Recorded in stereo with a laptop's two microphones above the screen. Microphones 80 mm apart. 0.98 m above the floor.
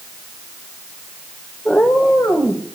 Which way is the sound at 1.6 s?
15° left (ahead or behind).